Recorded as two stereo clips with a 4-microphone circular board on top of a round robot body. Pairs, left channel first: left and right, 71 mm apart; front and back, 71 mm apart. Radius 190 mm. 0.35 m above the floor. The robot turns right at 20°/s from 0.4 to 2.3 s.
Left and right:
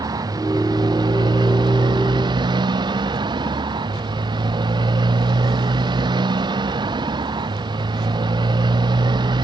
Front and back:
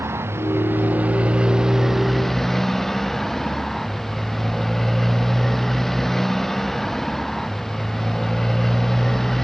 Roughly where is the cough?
No cough in this recording.